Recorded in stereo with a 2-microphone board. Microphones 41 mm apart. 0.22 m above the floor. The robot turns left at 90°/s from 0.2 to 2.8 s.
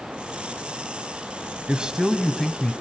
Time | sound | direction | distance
1.7 | a man speaking | 125° right | 1.1 m